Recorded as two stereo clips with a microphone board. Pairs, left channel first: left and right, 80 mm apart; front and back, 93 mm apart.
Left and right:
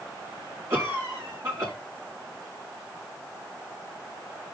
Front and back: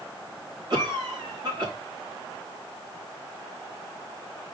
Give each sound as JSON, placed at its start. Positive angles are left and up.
{"t": 0.7, "sound": "a cough", "azimuth_deg": -145, "distance_m": 4.5}